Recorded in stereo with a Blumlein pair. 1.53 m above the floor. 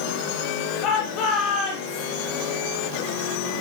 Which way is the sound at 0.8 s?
40° left.